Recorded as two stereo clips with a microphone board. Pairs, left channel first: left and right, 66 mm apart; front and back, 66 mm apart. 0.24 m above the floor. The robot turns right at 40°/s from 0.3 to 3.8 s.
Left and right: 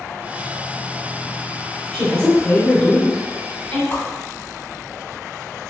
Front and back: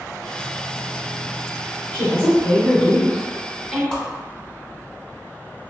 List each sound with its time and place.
1.9 s a woman speaking: 20° left, 1.0 m; by 3.8 s 95° left, 1.0 m
3.9 s a whoosh: 65° left, 0.8 m